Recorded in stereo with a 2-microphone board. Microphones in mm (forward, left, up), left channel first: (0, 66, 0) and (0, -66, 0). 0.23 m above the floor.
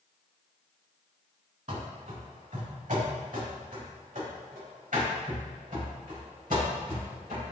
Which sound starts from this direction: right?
Running footsteps, at 1.7 s.